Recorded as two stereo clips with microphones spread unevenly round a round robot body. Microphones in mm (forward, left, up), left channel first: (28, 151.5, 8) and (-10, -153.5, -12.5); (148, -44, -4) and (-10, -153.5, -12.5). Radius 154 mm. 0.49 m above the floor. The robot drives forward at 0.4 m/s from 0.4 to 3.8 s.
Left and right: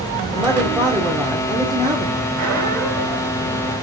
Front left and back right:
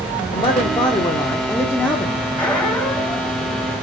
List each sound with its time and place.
0.3 s a man speaking: 20° right, 1.5 m; by 2.2 s 55° right, 1.1 m
2.4 s a squeak: 50° right, 2.0 m; by 3.4 s 60° right, 1.7 m